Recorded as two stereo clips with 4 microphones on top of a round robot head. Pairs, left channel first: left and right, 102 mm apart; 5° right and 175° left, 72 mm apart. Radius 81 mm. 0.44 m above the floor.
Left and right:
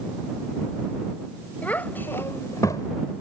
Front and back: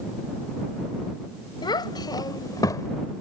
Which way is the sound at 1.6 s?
10° left.